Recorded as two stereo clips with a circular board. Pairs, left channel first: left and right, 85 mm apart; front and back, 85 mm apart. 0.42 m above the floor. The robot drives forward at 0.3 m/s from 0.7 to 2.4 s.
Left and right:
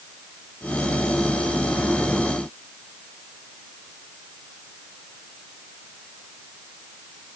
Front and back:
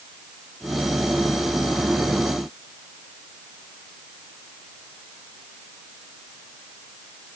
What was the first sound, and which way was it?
Only background noise.